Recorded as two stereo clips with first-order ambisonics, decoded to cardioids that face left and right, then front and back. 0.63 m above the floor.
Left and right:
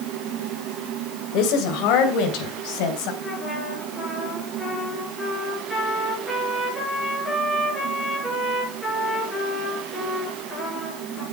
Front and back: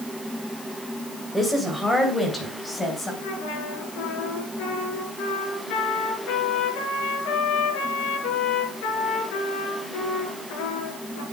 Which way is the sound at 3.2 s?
5° left.